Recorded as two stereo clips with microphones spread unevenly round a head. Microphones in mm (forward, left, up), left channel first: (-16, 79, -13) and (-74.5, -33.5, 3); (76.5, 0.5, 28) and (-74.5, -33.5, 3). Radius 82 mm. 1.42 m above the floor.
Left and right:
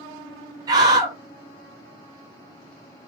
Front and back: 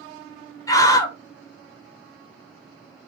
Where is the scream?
55° right, 0.8 m.